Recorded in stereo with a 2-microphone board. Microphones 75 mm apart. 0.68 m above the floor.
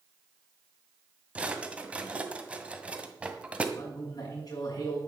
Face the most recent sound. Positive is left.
turn(degrees=55)  # may be behind; listen again after turning